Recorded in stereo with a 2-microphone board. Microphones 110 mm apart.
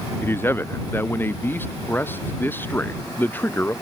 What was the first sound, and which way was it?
A man speaking, 20° left (ahead or behind).